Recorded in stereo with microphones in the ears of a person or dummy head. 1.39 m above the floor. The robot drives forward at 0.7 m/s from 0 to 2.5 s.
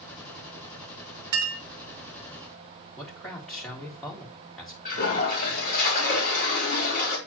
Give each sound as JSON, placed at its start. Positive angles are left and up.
{"t": 1.3, "sound": "a clink", "side_deg": -15, "distance_m": 0.6}
{"t": 3.0, "sound": "a man speaking", "side_deg": 5, "distance_m": 2.0}
{"t": 4.8, "sound": "a toilet flushing", "side_deg": 45, "distance_m": 3.0}